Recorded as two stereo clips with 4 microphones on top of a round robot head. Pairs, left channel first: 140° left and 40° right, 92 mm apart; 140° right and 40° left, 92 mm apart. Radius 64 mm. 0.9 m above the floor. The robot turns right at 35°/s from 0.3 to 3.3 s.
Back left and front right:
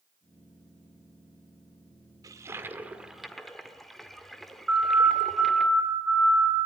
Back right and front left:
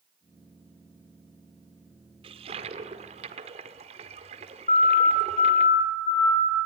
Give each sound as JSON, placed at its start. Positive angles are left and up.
{"t": 2.2, "sound": "a toilet flushing", "azimuth_deg": 15, "distance_m": 1.8}
{"t": 4.7, "sound": "a siren", "azimuth_deg": -125, "distance_m": 5.5}